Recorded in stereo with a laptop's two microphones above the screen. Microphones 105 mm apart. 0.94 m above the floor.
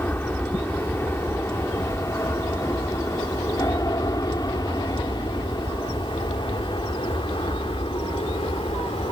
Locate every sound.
0.0 s an aircraft: 20° left (ahead or behind); by 9.1 s 60° left (ahead or behind)